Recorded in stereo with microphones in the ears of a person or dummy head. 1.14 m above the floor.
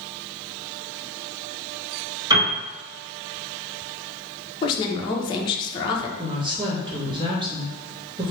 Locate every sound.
2.3 s a piano: 20° right (ahead or behind), 1.5 m
4.6 s a woman speaking: 25° left (ahead or behind), 0.6 m
6.2 s a woman speaking: 25° right (ahead or behind), 1.2 m